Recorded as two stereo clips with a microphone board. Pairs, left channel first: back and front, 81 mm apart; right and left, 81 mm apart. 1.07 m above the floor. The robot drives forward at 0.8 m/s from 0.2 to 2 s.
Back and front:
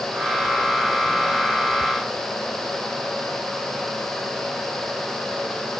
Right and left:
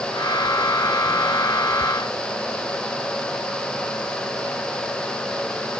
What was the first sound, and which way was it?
Only background noise.